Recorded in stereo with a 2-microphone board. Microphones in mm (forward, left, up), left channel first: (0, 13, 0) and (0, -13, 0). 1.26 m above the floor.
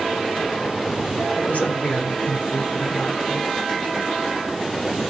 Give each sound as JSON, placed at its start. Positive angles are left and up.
{"t": 1.4, "sound": "a woman speaking", "side_deg": 90, "distance_m": 4.0}